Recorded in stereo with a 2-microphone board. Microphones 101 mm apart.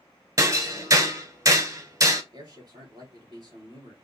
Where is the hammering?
35° right (ahead or behind), 0.9 m.